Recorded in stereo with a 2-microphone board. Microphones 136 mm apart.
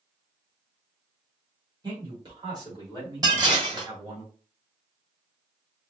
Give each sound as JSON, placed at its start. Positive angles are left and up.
{"t": 1.8, "sound": "a man speaking", "side_deg": -30, "distance_m": 1.4}
{"t": 3.2, "sound": "dishes clattering", "side_deg": -30, "distance_m": 1.0}